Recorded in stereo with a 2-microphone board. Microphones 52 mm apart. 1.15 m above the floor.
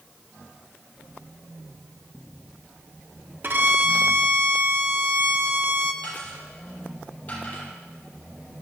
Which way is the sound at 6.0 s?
30° left (ahead or behind).